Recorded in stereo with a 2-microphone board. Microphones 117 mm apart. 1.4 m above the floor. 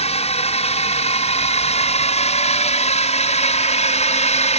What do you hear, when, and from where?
0.0 s a drone: 65° left (ahead or behind); by 4.6 s 70° left (ahead or behind)